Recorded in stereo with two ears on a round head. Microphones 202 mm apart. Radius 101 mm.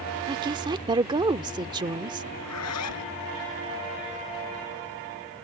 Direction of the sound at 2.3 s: 80° left.